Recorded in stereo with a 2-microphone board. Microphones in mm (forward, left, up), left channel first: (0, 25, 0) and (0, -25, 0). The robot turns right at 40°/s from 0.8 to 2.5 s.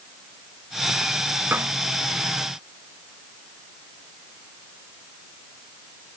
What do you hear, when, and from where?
1.5 s a snare drum: 45° right (ahead or behind); by 1.8 s 35° right (ahead or behind)